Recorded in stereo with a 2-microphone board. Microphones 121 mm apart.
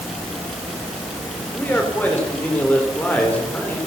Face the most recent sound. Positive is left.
turn(degrees=10)  # may be behind; listen again after turning